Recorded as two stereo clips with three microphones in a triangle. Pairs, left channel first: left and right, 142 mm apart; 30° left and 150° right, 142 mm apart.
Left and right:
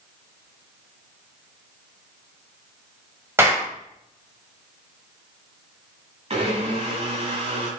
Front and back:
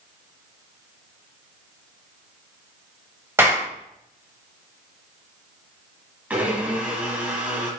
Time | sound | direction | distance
3.4 | a clap | 120° right | 1.3 m
6.3 | a blender | 75° right | 1.1 m